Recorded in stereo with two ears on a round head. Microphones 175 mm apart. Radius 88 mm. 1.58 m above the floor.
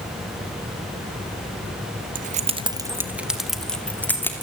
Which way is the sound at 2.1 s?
45° right (ahead or behind).